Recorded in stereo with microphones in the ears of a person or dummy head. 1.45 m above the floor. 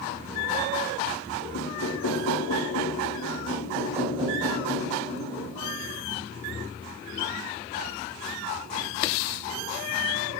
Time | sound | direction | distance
1.5 | knocking | 75° left (ahead or behind) | 2 m
3.5 | knocking | 25° right (ahead or behind) | 6 m